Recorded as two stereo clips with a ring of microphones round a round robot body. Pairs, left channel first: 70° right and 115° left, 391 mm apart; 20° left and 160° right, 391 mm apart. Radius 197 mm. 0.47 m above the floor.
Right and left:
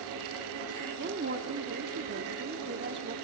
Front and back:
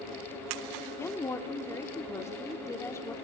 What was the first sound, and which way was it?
A woman speaking, 100° left.